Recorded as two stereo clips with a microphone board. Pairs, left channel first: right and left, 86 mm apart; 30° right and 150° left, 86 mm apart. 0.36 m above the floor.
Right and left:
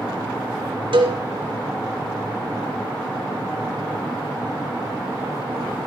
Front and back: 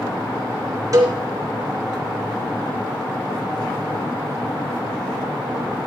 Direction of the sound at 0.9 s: 100° left.